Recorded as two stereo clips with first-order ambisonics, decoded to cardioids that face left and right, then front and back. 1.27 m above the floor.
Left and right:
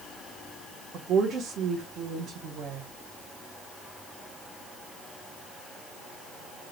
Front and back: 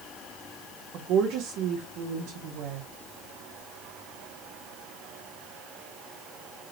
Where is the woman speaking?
145° right, 1.1 m.